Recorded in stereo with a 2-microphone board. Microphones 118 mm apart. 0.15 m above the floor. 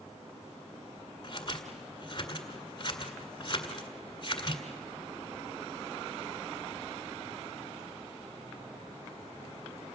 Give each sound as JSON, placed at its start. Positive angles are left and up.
{"t": 1.2, "sound": "scissors", "side_deg": 40, "distance_m": 1.9}